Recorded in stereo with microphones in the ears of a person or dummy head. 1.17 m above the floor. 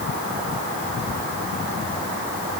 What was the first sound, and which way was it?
Only background noise.